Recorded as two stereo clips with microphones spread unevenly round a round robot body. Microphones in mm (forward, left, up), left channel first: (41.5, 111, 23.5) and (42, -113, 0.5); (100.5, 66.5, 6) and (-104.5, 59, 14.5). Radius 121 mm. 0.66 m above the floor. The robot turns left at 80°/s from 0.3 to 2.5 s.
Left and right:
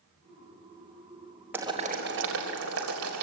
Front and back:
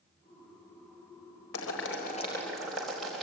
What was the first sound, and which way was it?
Boiling, 10° right.